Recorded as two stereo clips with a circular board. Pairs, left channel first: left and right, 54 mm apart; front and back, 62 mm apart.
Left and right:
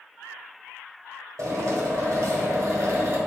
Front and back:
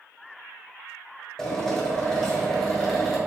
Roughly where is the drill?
Right.